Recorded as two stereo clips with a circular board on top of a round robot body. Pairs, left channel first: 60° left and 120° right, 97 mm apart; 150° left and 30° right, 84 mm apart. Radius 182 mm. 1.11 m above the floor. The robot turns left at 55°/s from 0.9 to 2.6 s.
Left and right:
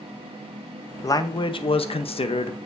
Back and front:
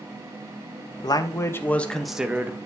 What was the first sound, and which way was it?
A man speaking, 115° left.